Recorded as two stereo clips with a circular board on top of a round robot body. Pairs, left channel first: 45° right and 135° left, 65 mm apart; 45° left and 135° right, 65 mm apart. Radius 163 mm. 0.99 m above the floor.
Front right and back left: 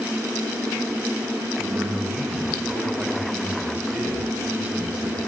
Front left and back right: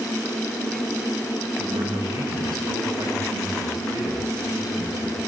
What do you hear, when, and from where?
1.6 s a man speaking: 145° right, 8.5 m